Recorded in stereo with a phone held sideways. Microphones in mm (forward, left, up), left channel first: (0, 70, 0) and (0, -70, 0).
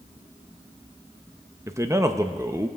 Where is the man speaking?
20° right (ahead or behind), 0.6 m.